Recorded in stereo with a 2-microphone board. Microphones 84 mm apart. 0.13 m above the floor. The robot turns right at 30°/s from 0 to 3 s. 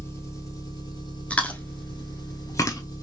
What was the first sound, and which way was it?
An engine running, 35° left.